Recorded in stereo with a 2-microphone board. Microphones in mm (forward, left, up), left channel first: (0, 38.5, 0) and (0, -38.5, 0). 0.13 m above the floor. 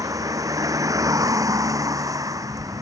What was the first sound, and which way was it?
A vehicle, 50° right (ahead or behind).